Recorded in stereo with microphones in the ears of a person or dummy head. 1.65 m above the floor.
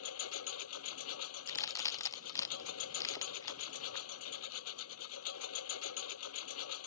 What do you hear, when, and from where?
0.0 s a lawn mower: 80° left
1.5 s a crack: 20° left (ahead or behind)